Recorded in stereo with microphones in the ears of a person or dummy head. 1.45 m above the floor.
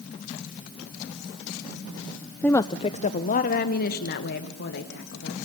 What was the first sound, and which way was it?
A woman speaking, 5° left (ahead or behind).